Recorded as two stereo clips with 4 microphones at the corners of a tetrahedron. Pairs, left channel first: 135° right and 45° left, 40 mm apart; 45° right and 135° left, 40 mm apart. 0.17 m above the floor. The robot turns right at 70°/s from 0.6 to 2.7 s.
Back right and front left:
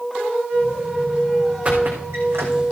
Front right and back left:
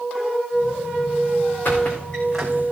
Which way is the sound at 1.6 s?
10° right.